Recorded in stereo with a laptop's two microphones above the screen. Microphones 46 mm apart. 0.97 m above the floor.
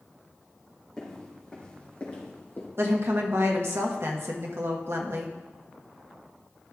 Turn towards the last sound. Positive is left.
turn(degrees=-60)  # may be behind; listen again after turning